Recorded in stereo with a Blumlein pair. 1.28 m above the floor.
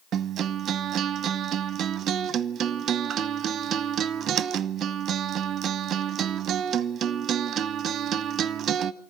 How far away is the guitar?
About 0.7 m.